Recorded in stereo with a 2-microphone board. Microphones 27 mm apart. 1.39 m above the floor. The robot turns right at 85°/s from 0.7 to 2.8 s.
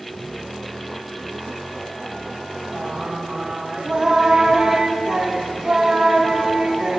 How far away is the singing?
About 2.5 m.